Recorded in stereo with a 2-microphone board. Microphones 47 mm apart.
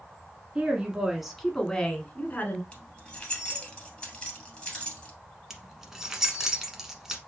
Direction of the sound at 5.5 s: 10° right (ahead or behind).